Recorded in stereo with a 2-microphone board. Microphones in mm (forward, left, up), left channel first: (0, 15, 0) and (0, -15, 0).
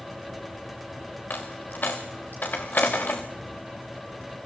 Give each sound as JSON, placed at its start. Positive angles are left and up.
{"t": 1.3, "sound": "a dropped coin", "side_deg": 75, "distance_m": 2.5}